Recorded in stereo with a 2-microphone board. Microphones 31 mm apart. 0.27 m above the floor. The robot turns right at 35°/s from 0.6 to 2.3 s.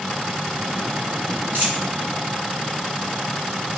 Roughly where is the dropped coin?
Right.